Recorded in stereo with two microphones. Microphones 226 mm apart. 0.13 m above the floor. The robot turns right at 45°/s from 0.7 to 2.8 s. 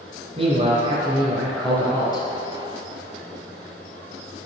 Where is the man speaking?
40° right, 1.7 m; by 2.3 s 35° left, 1.7 m.